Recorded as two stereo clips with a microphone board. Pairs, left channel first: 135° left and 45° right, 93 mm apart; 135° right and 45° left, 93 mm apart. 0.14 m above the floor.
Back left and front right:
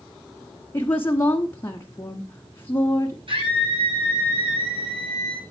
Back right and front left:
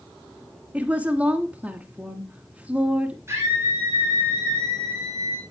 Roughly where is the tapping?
I don't hear tapping.